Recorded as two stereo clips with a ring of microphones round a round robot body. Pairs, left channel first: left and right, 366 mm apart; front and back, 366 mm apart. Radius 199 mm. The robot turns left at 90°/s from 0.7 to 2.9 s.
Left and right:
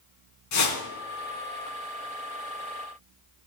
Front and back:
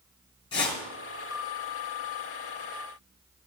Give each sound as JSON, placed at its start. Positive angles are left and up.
{"t": 0.5, "sound": "a whoosh", "azimuth_deg": 80, "distance_m": 3.5}